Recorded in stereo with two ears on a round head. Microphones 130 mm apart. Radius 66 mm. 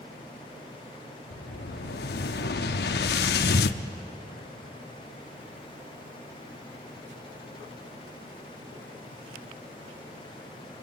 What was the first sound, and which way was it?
An explosion, 85° left.